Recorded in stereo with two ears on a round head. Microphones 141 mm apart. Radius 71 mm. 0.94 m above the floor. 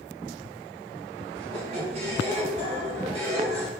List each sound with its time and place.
1.4 s a squeak: 35° right (ahead or behind), 0.8 m